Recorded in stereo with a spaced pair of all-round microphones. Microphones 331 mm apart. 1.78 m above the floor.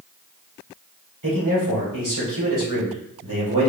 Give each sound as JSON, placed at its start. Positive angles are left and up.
{"t": 1.2, "sound": "a man speaking", "side_deg": -70, "distance_m": 1.6}